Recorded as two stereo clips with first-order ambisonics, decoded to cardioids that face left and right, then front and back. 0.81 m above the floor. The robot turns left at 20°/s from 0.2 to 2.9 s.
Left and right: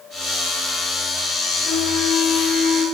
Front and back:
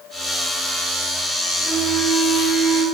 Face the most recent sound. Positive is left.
turn(degrees=0)